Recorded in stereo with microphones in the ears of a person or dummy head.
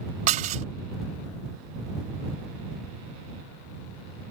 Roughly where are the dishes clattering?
Right.